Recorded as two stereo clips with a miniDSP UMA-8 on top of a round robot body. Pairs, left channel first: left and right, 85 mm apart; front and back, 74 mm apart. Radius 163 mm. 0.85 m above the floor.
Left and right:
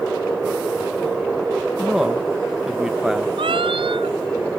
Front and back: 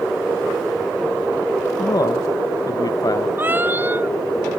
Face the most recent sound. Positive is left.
turn(degrees=-115)